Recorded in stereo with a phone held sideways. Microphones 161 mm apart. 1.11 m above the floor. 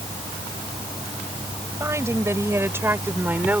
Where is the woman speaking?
20° right (ahead or behind); by 3.6 s 10° right (ahead or behind).